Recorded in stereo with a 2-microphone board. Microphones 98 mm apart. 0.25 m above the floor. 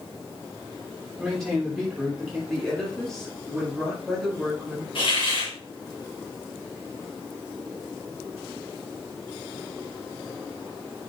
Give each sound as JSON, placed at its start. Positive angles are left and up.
{"t": 1.2, "sound": "a man speaking", "side_deg": 0, "distance_m": 6.5}
{"t": 2.5, "sound": "a woman speaking", "side_deg": 5, "distance_m": 5.5}
{"t": 5.0, "sound": "a hiss", "side_deg": 60, "distance_m": 4.0}